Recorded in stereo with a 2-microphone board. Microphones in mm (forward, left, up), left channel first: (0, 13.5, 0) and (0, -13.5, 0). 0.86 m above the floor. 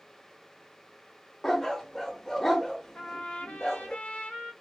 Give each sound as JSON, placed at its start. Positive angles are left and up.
{"t": 1.4, "sound": "a dog barking", "side_deg": 15, "distance_m": 0.6}
{"t": 3.0, "sound": "a trumpet", "side_deg": 60, "distance_m": 0.9}